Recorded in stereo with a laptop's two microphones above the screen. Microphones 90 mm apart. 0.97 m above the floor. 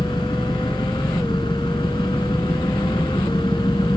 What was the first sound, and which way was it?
An engine running, 60° left (ahead or behind).